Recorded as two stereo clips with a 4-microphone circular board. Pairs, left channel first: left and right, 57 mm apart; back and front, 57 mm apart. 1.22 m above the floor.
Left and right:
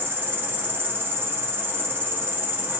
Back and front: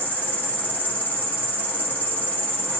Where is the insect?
130° right, 0.8 m.